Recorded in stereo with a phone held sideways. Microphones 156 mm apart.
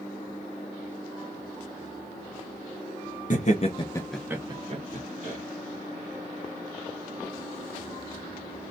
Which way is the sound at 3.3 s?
55° left (ahead or behind).